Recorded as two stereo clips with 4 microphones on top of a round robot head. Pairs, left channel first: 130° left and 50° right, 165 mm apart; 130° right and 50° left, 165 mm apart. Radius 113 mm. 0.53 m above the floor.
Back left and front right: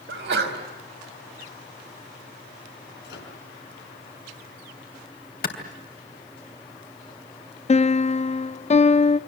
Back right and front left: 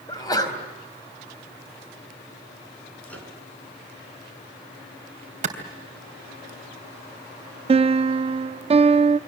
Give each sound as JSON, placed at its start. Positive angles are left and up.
{"t": 0.1, "sound": "a sneeze", "azimuth_deg": -60, "distance_m": 4.5}
{"t": 3.0, "sound": "a microwave", "azimuth_deg": 150, "distance_m": 5.0}
{"t": 5.4, "sound": "a clap", "azimuth_deg": 100, "distance_m": 3.0}
{"t": 7.7, "sound": "a piano", "azimuth_deg": 95, "distance_m": 0.5}